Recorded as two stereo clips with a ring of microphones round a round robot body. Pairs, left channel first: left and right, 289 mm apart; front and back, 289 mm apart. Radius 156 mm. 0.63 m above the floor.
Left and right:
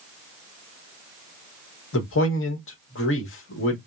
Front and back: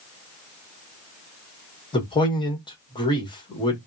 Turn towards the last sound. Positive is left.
turn(degrees=70)